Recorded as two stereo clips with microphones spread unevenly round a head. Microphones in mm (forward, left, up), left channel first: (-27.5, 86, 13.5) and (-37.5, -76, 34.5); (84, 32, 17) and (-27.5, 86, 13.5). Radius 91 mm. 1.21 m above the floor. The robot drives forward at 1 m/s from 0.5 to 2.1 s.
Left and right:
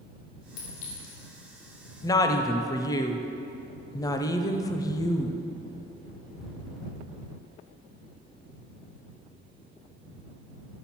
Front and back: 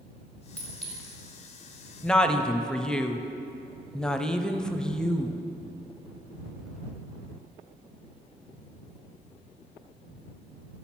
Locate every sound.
0.6 s a clink: 55° left, 2 m; by 1.1 s 70° left, 1.9 m
2.0 s a woman speaking: 45° left, 0.5 m; by 5.5 s 55° left, 0.5 m